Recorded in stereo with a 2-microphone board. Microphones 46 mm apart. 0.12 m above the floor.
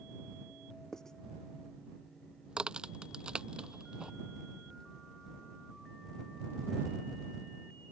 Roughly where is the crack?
Centre.